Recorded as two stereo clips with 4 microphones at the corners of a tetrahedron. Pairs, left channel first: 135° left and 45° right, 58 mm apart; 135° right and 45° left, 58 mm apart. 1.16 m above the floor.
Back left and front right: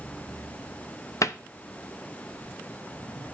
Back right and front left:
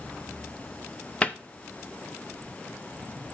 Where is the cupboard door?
160° left, 0.6 m.